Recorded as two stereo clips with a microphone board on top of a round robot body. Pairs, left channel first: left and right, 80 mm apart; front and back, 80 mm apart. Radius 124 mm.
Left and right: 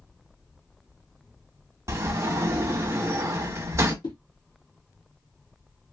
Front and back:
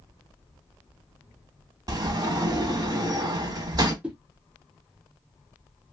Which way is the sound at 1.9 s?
145° right.